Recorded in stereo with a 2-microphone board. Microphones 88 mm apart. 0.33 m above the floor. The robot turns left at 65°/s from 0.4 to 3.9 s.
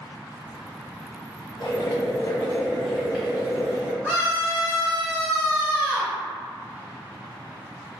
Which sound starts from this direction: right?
A scream, at 4.0 s.